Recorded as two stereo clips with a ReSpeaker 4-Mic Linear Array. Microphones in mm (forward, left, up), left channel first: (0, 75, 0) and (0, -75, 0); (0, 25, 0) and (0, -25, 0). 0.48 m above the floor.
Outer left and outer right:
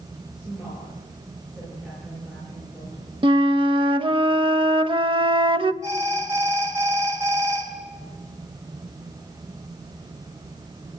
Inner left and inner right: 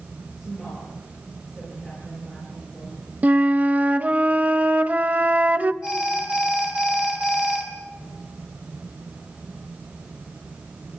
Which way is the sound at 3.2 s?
35° right (ahead or behind).